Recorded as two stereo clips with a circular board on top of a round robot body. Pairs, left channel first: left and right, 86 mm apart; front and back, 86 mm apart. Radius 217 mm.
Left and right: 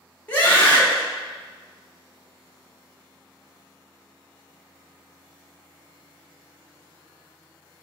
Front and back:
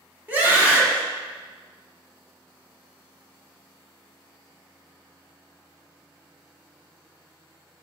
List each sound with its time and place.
0.3 s a scream: 135° left, 1.2 m